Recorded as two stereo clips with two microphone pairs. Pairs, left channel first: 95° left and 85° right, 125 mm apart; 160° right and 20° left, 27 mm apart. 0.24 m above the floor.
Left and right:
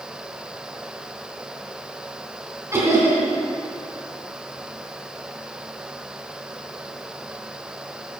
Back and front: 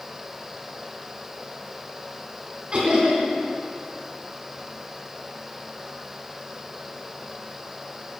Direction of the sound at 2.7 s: 25° right.